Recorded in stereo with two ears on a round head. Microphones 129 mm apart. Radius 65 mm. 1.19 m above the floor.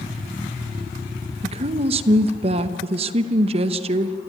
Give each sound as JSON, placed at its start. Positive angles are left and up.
{"t": 1.4, "sound": "a woman speaking", "side_deg": -45, "distance_m": 0.9}